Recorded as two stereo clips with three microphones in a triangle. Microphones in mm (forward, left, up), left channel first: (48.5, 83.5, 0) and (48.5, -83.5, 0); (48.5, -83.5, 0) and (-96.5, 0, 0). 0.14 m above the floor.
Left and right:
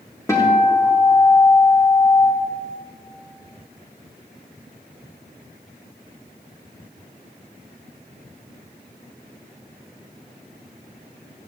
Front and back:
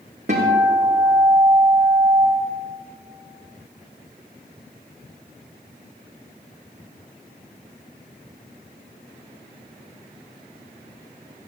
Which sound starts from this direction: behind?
A guitar, at 0.3 s.